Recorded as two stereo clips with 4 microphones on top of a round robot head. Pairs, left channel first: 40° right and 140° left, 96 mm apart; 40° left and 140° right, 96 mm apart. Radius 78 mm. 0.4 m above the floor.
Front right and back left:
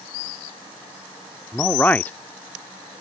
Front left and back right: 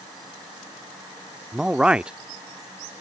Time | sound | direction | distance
1.5 | a man speaking | 80° right | ?